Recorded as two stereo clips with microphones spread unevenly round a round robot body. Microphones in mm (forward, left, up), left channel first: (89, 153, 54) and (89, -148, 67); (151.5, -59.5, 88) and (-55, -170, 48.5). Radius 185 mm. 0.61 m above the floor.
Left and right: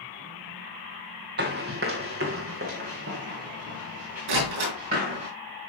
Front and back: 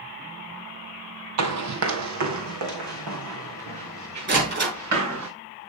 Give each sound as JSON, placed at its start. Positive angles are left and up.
{"t": 1.4, "sound": "running footsteps", "azimuth_deg": -150, "distance_m": 1.0}
{"t": 4.3, "sound": "a door slam", "azimuth_deg": -110, "distance_m": 7.0}